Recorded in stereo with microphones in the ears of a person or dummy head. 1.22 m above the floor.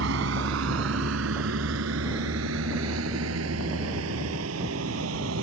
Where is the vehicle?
80° right; by 5.4 s 85° right.